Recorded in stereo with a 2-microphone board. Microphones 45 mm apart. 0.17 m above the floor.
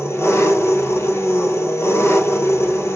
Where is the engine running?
80° left, 0.9 m.